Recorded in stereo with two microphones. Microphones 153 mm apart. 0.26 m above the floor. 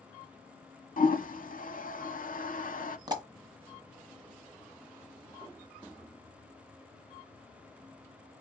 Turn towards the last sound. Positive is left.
turn(degrees=-25)  # may be behind; listen again after turning